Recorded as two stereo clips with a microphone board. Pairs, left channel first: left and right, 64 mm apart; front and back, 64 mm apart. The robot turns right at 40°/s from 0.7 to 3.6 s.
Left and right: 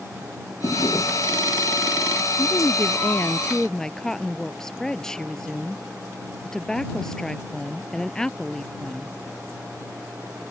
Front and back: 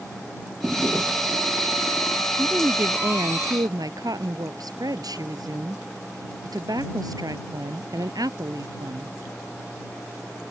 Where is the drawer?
110° left; by 1.5 s 145° left.